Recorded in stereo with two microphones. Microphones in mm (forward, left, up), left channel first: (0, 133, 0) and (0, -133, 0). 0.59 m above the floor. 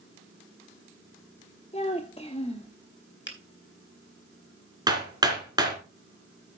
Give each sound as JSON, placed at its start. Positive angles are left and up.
{"t": 1.7, "sound": "a child speaking", "side_deg": 25, "distance_m": 0.8}
{"t": 3.3, "sound": "a finger snap", "side_deg": 45, "distance_m": 2.5}
{"t": 4.9, "sound": "hammering", "side_deg": -15, "distance_m": 3.0}